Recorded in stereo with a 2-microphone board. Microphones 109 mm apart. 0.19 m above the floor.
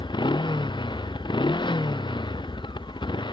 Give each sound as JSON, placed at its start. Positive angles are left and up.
{"t": 0.0, "sound": "a motorcycle", "side_deg": 45}